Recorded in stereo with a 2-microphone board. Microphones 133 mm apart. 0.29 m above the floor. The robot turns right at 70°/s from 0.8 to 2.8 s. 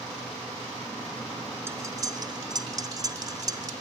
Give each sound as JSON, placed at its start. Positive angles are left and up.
{"t": 1.7, "sound": "cutlery clinking", "side_deg": -20, "distance_m": 0.6}